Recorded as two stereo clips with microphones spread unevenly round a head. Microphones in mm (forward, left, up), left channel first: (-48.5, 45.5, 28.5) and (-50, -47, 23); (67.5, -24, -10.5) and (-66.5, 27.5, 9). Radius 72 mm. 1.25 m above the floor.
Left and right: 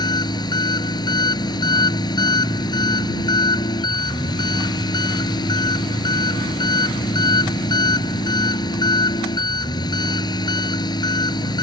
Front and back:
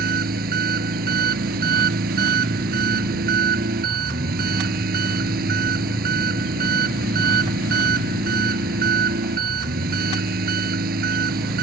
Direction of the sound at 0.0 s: 130° left.